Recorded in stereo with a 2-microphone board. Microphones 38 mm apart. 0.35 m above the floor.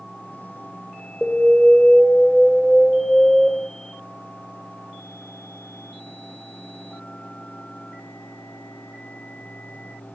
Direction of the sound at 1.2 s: 10° left (ahead or behind).